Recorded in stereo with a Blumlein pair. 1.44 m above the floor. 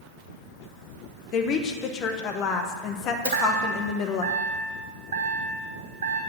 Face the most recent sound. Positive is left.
turn(degrees=-60)